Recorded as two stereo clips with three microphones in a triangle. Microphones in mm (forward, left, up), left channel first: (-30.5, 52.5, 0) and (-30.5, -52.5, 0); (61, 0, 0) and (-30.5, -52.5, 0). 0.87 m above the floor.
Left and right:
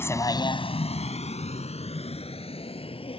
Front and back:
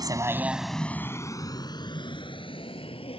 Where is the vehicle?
160° left; by 3.2 s 60° left.